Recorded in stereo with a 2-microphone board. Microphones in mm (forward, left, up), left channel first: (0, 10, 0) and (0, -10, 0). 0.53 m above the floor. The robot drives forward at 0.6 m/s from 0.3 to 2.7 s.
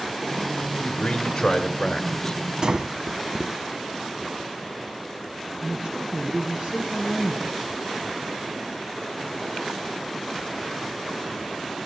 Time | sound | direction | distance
0.8 | a man speaking | 45° left (ahead or behind) | 1.4 m
2.6 | breathing | 50° right (ahead or behind) | 0.6 m
5.6 | a man speaking | 65° right (ahead or behind) | 5 m